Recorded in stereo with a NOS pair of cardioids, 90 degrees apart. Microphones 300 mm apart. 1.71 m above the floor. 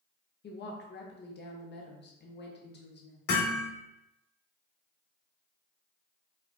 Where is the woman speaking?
35° left, 0.9 m.